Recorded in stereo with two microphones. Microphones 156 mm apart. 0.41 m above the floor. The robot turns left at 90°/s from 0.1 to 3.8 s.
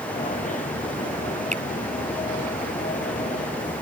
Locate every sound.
1.5 s a finger snap: 50° right (ahead or behind); by 1.6 s 60° right (ahead or behind)